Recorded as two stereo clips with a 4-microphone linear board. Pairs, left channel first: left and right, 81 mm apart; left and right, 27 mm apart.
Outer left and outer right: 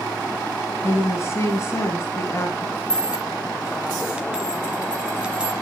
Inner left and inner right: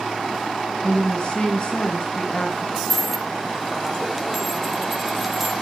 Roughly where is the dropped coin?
Centre.